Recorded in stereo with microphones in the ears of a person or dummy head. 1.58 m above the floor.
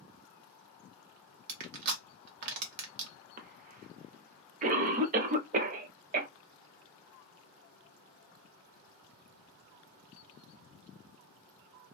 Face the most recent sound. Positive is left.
turn(degrees=-40)  # may be behind; listen again after turning